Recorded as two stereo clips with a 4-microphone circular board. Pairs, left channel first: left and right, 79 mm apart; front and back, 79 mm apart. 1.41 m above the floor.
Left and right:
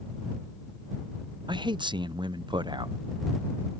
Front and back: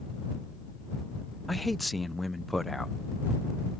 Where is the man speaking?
90° right.